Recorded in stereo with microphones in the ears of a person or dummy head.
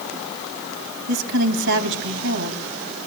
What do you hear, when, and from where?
1.1 s a woman speaking: 80° right, 2.5 m